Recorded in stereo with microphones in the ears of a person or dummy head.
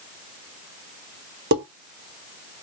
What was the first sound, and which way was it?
Dishes clattering, 60° right (ahead or behind).